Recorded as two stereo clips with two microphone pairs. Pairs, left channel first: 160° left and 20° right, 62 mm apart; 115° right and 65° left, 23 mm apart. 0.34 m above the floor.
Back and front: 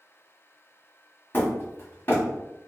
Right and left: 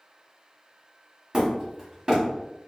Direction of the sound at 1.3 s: 110° left.